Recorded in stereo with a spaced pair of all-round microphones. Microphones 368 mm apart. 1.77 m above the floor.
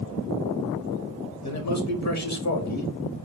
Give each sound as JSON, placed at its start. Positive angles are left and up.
{"t": 1.4, "sound": "a man speaking", "side_deg": 45, "distance_m": 1.0}